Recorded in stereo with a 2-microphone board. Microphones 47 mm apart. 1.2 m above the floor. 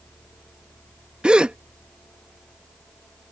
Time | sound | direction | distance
1.2 | a gasp | 20° right (ahead or behind) | ?